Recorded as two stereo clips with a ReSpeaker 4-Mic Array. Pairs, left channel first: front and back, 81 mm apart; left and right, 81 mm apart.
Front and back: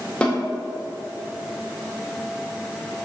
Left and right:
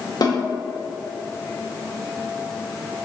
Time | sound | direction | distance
0.2 | a snare drum | 75° left | 2 m